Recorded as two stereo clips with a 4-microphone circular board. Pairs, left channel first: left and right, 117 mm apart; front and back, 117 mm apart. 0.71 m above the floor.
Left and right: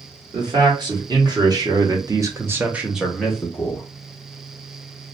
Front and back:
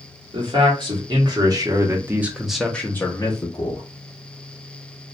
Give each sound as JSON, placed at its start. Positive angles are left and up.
{"t": 0.3, "sound": "a man speaking", "azimuth_deg": -140, "distance_m": 1.4}